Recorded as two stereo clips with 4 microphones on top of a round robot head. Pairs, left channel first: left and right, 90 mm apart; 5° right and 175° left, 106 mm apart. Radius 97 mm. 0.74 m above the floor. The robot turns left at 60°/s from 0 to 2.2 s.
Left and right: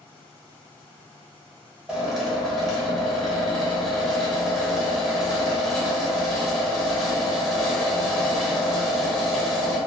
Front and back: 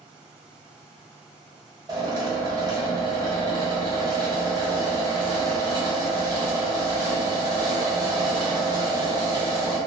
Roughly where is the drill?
Behind.